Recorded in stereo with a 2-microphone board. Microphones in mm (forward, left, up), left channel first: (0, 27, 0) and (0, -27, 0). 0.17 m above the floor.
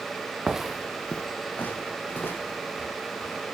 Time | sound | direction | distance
0.5 | footsteps | 15° right (ahead or behind) | 0.9 m